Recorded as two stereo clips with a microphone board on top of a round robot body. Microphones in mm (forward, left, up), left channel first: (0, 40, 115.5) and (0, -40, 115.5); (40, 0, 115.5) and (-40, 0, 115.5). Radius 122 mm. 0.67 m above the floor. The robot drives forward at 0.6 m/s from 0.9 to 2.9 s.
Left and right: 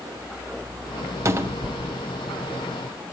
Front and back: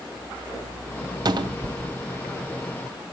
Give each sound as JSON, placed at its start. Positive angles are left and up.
{"t": 1.2, "sound": "a cupboard door", "azimuth_deg": -145, "distance_m": 0.6}